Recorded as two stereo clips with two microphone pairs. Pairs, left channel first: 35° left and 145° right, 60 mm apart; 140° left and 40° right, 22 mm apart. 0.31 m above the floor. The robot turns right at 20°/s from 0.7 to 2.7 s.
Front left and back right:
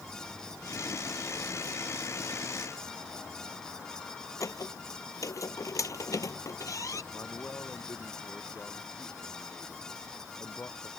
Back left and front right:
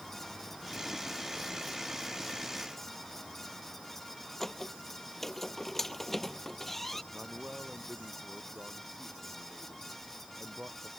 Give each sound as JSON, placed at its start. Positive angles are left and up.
{"t": 4.4, "sound": "a squeak", "azimuth_deg": 60}
{"t": 7.1, "sound": "a man speaking", "azimuth_deg": -20}